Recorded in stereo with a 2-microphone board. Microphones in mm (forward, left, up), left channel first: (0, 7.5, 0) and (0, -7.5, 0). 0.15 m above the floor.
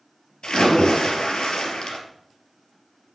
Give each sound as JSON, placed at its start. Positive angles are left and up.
{"t": 0.4, "sound": "a splash", "side_deg": 65, "distance_m": 3.0}